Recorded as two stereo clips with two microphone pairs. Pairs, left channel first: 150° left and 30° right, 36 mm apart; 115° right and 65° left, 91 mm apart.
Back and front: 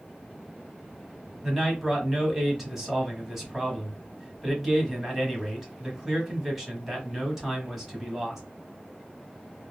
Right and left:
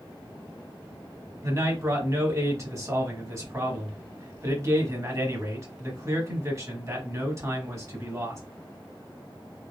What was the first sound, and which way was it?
A man speaking, 40° left.